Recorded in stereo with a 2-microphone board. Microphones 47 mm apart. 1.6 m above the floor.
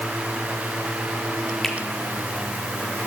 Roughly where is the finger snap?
Centre.